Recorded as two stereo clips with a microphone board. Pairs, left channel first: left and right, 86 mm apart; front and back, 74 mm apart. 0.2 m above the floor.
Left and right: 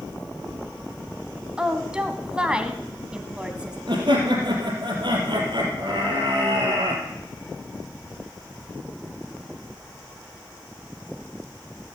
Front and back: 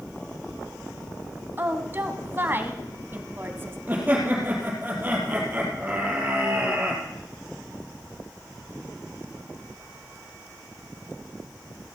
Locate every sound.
1.6 s a woman speaking: 160° right, 1.7 m
3.9 s laughter: 115° right, 4.5 m